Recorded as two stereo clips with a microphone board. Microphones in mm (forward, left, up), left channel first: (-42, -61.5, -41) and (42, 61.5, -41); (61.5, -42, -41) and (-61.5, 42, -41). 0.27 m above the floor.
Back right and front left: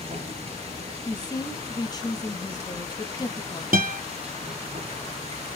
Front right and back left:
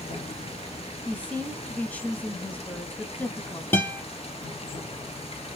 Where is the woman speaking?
105° right, 1.3 m.